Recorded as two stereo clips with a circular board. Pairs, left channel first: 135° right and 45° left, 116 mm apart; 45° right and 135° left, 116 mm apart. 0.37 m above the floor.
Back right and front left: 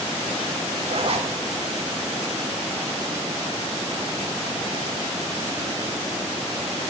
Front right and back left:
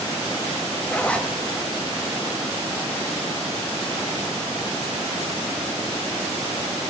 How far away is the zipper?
About 1.1 m.